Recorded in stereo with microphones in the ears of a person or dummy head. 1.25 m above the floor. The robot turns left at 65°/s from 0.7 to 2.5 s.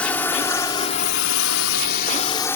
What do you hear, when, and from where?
0.0 s a drone: 5° left (ahead or behind); by 2.6 s 15° left (ahead or behind)